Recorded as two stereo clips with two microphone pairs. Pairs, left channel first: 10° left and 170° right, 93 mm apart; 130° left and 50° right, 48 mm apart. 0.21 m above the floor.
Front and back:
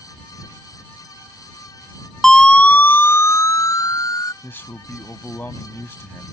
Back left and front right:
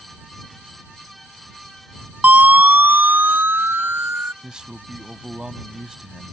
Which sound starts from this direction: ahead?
A man speaking, at 4.4 s.